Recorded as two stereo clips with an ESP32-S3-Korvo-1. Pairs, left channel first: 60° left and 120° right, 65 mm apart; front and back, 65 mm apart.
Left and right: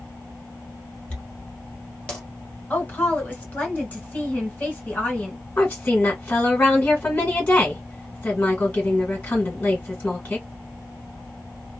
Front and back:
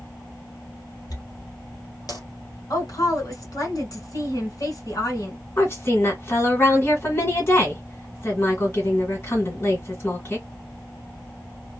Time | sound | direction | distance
1.1 | a dropped coin | 10° right | 1.6 m
2.7 | a woman speaking | straight ahead | 2.0 m
5.6 | a woman speaking | 5° left | 1.7 m